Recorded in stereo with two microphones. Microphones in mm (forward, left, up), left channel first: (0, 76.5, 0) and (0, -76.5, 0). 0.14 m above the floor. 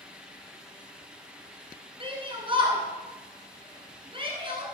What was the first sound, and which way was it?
A shout, 35° right (ahead or behind).